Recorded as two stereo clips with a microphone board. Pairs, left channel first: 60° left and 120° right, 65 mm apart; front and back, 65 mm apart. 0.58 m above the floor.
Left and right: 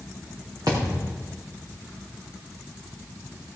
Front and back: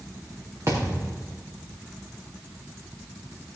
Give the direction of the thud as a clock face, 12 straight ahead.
5 o'clock.